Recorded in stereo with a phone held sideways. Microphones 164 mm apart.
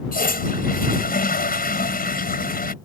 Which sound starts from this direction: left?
A toilet flushing, at 0.1 s.